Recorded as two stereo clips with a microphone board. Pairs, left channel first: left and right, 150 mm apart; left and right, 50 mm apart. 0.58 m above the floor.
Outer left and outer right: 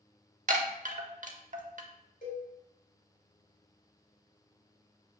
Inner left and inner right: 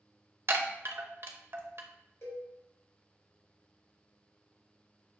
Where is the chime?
60° right (ahead or behind), 0.6 m.